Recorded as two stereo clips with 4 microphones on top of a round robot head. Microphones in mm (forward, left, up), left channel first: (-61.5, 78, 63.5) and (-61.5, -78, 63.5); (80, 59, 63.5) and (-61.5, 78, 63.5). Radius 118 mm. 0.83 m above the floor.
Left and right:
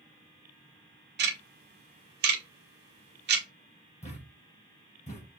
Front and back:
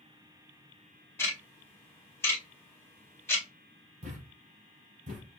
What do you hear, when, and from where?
1.2 s ticking: 85° right, 1.0 m
4.0 s a thud: 135° left, 3 m